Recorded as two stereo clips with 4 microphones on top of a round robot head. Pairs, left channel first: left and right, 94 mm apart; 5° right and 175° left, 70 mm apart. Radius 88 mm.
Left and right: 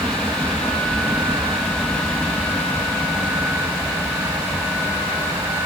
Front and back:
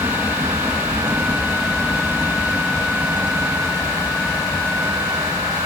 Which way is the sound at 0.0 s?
160° left.